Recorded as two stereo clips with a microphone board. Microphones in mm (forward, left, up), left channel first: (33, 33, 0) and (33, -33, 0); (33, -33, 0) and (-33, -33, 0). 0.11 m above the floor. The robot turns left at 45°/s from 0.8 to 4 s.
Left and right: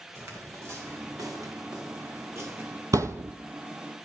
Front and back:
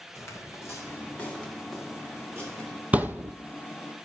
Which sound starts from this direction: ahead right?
Footsteps, at 0.1 s.